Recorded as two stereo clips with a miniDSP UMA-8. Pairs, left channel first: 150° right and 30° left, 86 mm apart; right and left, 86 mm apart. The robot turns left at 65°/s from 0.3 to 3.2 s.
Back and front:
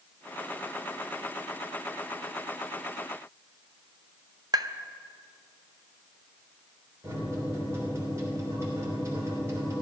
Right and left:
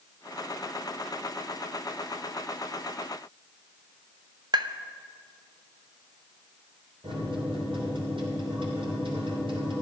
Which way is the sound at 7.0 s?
85° left.